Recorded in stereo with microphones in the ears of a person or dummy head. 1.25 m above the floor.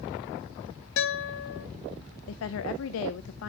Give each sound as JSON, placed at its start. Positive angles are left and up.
{"t": 1.0, "sound": "a guitar", "side_deg": 60, "distance_m": 1.1}
{"t": 2.3, "sound": "a woman speaking", "side_deg": 75, "distance_m": 0.6}